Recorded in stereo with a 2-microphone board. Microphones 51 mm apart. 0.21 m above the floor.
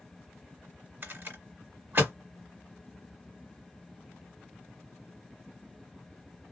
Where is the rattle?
40° right (ahead or behind), 2.0 m.